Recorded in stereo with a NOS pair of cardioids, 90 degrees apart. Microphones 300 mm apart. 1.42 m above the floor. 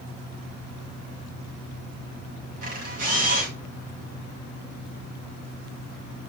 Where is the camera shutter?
50° right, 4.5 m.